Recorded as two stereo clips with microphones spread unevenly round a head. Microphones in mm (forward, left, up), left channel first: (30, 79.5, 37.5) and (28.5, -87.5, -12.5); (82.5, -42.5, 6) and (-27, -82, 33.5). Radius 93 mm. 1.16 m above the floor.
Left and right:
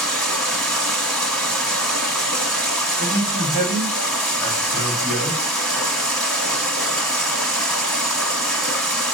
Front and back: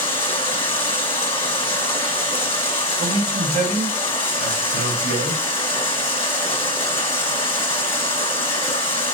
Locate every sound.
0.0 s running water: 30° left, 1.1 m
3.0 s a man speaking: 175° right, 2.5 m